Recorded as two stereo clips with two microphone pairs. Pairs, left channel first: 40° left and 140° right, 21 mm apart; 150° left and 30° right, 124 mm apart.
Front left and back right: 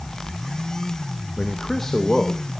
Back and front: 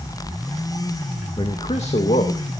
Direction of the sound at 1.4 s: 105° left.